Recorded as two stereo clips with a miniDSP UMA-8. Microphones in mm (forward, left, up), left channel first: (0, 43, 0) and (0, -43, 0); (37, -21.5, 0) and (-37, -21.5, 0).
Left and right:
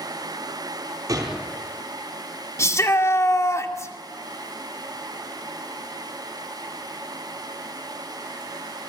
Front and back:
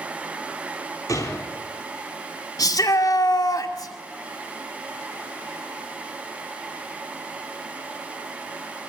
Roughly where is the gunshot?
Ahead right.